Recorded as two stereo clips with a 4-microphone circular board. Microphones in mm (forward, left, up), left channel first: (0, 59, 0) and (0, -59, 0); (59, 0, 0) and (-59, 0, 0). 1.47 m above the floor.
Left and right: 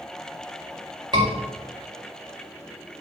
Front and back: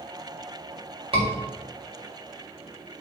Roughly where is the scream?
Behind right.